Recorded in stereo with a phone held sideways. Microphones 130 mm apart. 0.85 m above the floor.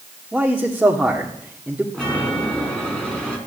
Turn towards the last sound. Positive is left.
turn(degrees=5)  # may be behind; listen again after turning